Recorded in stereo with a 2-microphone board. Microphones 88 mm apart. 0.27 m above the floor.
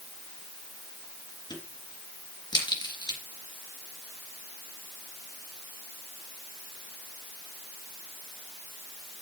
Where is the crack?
55° left (ahead or behind), 3 m.